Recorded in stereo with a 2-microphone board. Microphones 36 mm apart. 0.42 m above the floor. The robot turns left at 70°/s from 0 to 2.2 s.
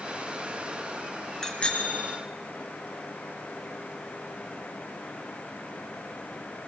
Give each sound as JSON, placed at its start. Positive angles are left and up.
{"t": 1.4, "sound": "a bicycle bell", "azimuth_deg": 160, "distance_m": 4.5}